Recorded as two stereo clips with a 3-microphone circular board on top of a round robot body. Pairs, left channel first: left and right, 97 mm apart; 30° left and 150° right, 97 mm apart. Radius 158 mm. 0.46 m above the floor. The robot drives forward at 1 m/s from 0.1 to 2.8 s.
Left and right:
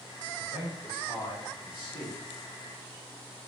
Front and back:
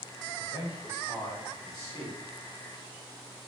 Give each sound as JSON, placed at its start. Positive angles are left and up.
{"t": 0.4, "sound": "a man speaking", "azimuth_deg": 95, "distance_m": 3.5}